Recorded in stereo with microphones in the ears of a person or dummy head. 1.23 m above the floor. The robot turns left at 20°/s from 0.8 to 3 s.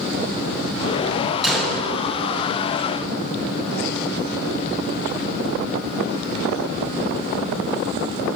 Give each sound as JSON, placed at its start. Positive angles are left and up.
{"t": 1.4, "sound": "a gunshot", "side_deg": 0, "distance_m": 0.7}